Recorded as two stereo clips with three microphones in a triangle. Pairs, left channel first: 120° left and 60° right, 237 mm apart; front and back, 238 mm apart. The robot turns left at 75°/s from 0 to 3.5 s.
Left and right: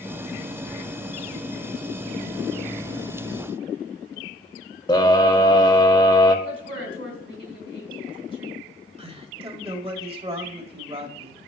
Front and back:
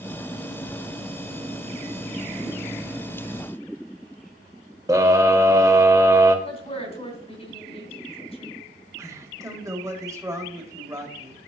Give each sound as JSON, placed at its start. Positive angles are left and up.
{"t": 4.9, "sound": "a scream", "azimuth_deg": 140, "distance_m": 0.9}
{"t": 6.5, "sound": "a woman speaking", "azimuth_deg": -60, "distance_m": 3.0}
{"t": 9.0, "sound": "a man speaking", "azimuth_deg": -110, "distance_m": 1.8}